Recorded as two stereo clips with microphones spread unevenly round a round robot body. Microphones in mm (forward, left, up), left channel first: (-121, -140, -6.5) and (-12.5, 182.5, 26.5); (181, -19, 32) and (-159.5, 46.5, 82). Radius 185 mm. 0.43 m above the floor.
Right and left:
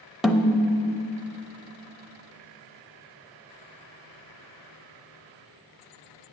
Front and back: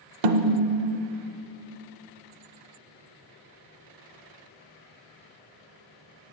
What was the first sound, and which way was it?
A snare drum, 160° left.